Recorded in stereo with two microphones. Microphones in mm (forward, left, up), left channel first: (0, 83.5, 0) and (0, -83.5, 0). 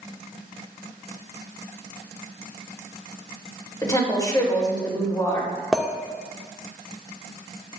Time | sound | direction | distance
3.8 | a woman speaking | 25° left (ahead or behind) | 3 m
5.7 | a clink | centre (ahead or behind) | 0.7 m